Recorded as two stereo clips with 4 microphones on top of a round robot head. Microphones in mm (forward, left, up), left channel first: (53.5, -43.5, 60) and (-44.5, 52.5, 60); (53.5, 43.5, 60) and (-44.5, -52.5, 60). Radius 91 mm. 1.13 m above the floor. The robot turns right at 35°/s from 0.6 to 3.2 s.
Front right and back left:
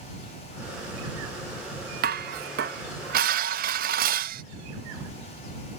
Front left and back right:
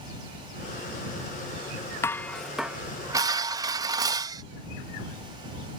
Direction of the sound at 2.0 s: 120° left.